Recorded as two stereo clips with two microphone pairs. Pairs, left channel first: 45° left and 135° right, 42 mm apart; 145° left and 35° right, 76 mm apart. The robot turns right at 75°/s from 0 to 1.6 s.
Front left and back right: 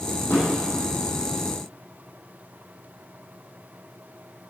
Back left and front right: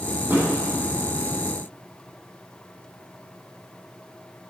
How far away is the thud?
About 4 m.